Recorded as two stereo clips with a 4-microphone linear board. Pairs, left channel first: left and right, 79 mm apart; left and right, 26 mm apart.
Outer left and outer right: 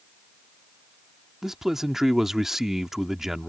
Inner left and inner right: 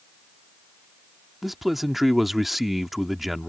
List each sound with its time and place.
1.4 s a man speaking: 5° right (ahead or behind)